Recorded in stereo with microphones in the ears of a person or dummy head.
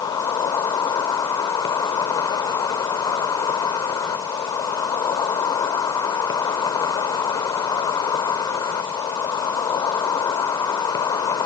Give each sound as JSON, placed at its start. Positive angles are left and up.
{"t": 0.0, "sound": "an insect", "side_deg": 25}